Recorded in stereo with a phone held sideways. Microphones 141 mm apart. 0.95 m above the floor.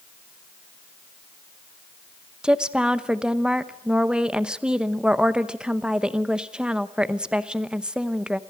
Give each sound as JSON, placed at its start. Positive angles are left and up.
{"t": 2.4, "sound": "a woman speaking", "side_deg": -5, "distance_m": 0.8}